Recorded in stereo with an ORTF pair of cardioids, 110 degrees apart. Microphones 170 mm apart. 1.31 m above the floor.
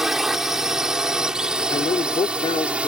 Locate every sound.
0.0 s a drone: 5° right; by 2.9 s 10° right
1.7 s a man speaking: 35° left